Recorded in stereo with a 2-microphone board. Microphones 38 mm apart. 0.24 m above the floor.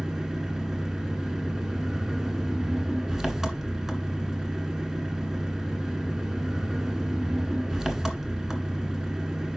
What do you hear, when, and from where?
0.0 s an engine running: 10° right (ahead or behind), 1.7 m